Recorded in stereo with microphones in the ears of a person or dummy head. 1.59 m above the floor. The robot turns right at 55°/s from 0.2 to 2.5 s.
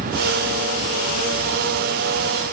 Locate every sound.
Only background noise.